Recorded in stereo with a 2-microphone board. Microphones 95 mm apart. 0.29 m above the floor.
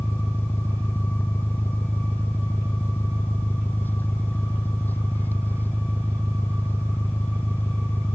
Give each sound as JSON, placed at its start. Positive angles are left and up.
{"t": 0.0, "sound": "an engine running", "side_deg": 20}